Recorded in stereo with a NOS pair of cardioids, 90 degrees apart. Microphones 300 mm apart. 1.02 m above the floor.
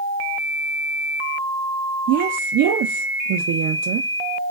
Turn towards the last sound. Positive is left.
turn(degrees=-70)